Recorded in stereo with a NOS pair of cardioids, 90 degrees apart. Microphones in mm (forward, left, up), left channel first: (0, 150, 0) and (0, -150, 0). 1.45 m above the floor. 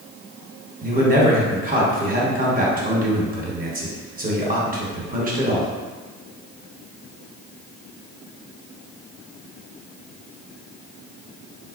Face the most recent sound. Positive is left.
turn(degrees=-30)